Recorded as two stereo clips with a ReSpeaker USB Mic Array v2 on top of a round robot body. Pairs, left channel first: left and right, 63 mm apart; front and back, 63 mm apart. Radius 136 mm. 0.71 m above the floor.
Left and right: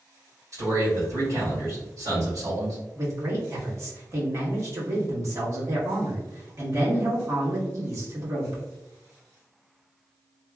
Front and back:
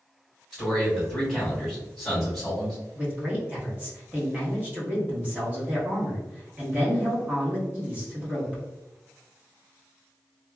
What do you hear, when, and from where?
0.5 s a man speaking: 90° right, 1.9 m
3.0 s a man speaking: 120° right, 1.4 m